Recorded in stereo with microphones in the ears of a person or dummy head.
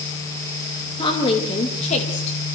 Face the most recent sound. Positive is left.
turn(degrees=45)  # may be behind; listen again after turning